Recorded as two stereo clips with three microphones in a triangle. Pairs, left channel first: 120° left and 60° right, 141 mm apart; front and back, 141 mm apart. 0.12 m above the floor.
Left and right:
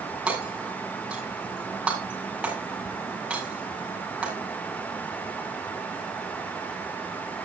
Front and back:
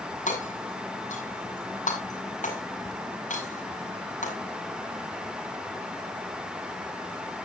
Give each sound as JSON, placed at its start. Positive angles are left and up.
{"t": 0.3, "sound": "hammering", "azimuth_deg": 20, "distance_m": 7.0}